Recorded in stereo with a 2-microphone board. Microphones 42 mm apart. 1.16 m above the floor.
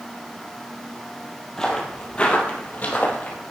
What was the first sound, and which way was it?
Footsteps, 15° left (ahead or behind).